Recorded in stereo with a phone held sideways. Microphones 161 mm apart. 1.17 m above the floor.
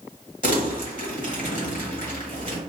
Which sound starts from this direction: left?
Crumpling, at 0.4 s.